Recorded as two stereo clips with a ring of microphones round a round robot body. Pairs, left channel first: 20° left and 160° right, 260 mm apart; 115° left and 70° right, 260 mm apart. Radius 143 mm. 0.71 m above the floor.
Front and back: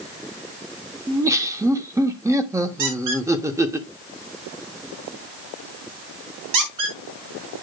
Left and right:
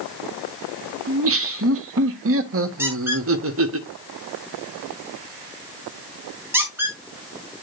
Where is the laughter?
80° right, 1.1 m.